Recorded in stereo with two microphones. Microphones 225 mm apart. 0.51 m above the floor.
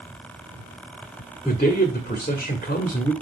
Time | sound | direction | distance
1.4 | a man speaking | 40° left (ahead or behind) | 1.5 m